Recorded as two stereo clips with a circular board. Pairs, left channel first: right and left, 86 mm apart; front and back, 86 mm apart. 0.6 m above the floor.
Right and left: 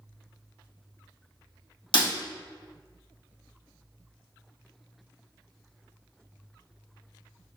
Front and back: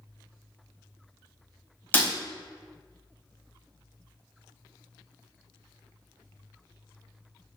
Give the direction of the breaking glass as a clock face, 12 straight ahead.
2 o'clock.